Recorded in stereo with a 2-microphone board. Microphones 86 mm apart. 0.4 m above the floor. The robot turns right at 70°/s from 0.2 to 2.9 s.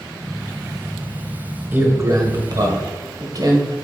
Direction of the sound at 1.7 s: 150° right.